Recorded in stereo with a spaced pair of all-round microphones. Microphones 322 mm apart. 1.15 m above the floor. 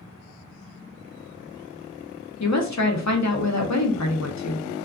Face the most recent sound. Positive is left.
turn(degrees=55)  # may be behind; listen again after turning